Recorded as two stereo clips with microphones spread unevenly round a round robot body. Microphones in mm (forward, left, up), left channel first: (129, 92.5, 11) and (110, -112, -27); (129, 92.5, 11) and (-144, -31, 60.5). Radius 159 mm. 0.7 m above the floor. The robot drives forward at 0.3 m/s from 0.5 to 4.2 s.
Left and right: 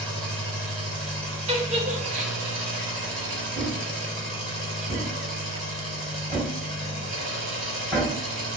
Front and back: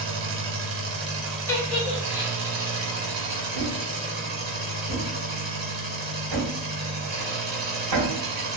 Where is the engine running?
165° left, 0.9 m; by 8.6 s 175° left, 2.0 m.